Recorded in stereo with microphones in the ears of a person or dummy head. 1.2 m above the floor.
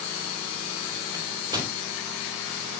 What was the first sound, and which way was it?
A microwave, 25° right (ahead or behind).